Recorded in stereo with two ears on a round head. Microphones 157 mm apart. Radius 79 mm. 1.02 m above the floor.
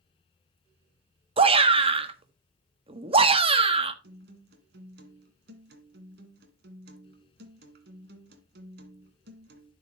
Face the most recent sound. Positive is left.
turn(degrees=-65)  # may be behind; listen again after turning